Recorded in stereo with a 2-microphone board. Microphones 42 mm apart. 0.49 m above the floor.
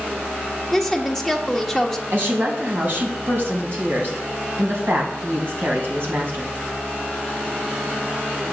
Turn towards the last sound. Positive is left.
turn(degrees=-55)  # may be behind; listen again after turning